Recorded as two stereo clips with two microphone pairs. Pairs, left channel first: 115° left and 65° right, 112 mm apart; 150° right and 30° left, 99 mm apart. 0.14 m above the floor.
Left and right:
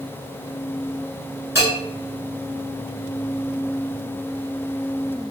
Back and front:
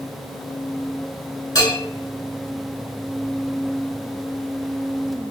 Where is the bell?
125° right, 1.1 m.